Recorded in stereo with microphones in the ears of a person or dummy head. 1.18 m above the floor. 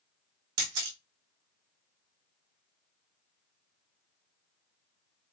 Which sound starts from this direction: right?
A camera shutter, at 0.6 s.